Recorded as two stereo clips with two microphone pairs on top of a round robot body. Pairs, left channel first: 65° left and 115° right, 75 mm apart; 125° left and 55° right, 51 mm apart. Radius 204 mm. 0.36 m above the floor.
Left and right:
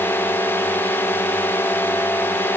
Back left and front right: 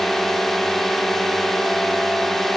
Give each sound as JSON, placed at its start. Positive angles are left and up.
{"t": 0.0, "sound": "a drone", "azimuth_deg": 40}